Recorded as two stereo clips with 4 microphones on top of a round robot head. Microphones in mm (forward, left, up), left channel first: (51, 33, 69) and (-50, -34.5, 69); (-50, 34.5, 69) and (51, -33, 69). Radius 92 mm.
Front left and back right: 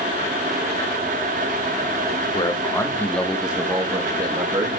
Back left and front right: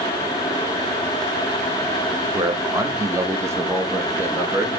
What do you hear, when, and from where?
2.3 s a man speaking: 15° left, 1.1 m; by 4.8 s 110° right, 1.5 m